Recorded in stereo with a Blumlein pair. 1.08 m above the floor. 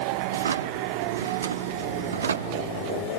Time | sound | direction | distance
0.3 | a drawer | 70° right | 1.0 m